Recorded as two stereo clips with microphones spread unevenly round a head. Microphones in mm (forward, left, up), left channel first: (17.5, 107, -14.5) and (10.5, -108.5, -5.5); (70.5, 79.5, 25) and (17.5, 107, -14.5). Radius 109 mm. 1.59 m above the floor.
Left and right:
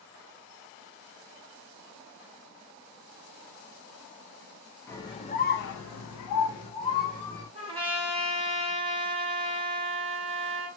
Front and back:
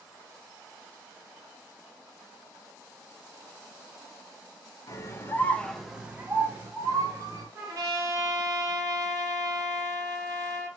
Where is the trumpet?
135° right, 0.7 m.